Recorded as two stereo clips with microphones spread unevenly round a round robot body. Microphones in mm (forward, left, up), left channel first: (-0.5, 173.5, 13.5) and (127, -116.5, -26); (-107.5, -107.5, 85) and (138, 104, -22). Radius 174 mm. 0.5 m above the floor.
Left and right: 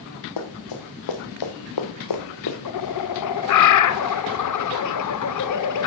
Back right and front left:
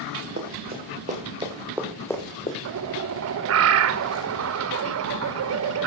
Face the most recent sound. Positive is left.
turn(degrees=75)